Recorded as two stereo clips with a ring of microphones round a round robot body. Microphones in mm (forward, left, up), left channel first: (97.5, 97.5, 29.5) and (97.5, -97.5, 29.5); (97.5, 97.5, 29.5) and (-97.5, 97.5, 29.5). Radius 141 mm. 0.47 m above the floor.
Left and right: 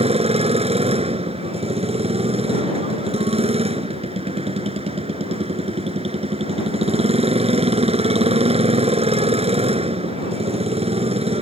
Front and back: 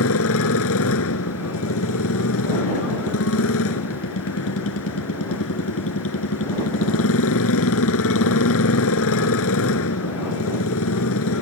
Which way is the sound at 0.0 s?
30° right.